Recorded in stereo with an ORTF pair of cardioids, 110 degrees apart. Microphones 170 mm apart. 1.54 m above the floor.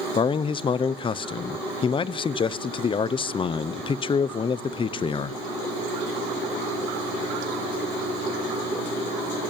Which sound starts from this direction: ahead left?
A man speaking, at 0.1 s.